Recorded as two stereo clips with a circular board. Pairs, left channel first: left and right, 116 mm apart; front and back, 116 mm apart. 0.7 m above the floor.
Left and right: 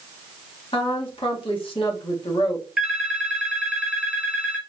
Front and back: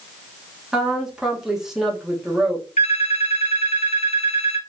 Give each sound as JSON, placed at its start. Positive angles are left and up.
{"t": 0.7, "sound": "a woman speaking", "azimuth_deg": 95, "distance_m": 1.4}
{"t": 2.8, "sound": "a phone ringing", "azimuth_deg": -5, "distance_m": 1.4}